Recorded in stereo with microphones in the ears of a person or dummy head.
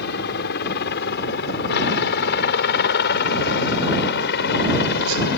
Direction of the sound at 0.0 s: 55° left (ahead or behind).